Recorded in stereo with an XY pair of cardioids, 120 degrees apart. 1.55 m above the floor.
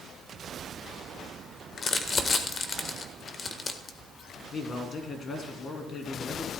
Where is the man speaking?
40° left, 2.5 m.